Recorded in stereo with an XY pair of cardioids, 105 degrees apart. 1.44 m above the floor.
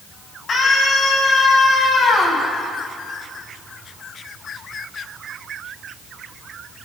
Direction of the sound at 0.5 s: 50° left.